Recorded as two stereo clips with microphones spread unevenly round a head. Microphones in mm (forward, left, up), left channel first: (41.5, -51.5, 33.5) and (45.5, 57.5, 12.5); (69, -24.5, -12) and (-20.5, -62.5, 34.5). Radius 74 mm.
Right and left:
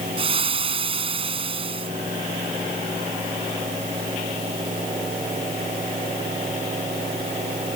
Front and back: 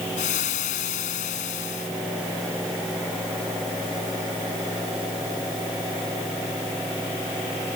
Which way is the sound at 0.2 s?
50° left.